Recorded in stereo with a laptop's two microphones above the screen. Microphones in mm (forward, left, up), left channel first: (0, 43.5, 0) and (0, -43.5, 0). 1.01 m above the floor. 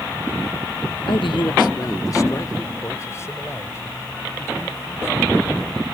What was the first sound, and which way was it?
A man speaking, 80° left.